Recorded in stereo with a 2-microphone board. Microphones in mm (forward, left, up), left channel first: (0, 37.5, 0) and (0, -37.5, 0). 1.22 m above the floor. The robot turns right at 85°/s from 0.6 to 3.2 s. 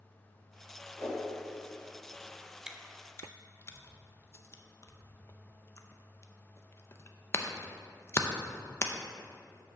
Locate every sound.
1.0 s a whoosh: 35° left (ahead or behind), 2.5 m; by 1.2 s 15° left (ahead or behind), 2.5 m
2.7 s chewing: 10° right (ahead or behind), 0.6 m; by 8.9 s 35° left (ahead or behind), 0.6 m